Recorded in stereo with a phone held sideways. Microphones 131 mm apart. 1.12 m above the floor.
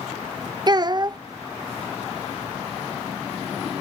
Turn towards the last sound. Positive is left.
turn(degrees=-35)  # may be behind; listen again after turning